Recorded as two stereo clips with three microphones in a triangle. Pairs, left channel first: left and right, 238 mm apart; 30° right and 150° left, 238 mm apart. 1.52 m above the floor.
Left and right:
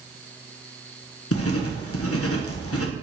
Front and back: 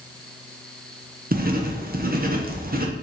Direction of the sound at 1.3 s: 100° left.